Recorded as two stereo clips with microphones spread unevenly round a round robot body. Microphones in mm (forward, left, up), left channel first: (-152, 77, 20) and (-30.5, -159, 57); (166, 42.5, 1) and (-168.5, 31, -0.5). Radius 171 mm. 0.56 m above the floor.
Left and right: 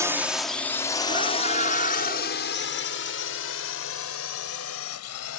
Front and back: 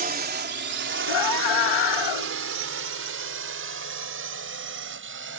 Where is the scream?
10° left.